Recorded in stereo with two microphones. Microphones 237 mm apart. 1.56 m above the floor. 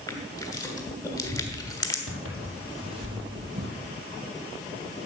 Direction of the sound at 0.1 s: 15° left (ahead or behind).